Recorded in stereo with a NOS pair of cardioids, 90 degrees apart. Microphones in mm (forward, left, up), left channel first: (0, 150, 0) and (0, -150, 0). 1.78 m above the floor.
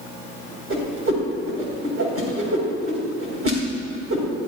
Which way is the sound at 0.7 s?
50° right.